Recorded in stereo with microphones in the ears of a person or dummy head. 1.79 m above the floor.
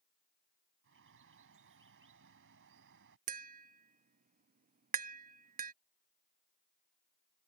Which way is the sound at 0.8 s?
65° right (ahead or behind).